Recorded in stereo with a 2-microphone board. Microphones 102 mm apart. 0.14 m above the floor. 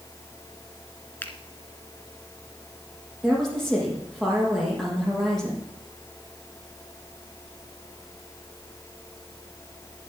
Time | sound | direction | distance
1.2 | a finger snap | 20° left (ahead or behind) | 1.7 m
3.2 | a woman speaking | 5° left (ahead or behind) | 6.5 m